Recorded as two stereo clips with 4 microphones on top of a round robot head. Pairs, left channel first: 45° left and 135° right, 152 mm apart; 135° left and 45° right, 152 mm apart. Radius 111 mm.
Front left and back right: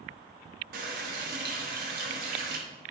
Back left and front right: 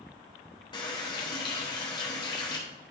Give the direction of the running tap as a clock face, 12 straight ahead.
5 o'clock.